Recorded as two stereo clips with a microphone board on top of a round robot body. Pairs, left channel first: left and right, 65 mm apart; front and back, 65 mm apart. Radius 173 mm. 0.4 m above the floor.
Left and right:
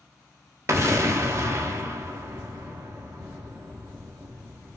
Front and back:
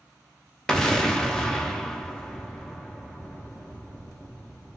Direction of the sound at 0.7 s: 75° right.